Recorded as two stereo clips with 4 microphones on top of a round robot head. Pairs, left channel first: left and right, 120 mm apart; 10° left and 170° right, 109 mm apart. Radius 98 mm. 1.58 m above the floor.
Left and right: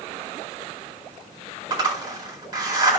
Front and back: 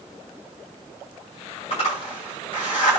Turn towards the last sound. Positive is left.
turn(degrees=-40)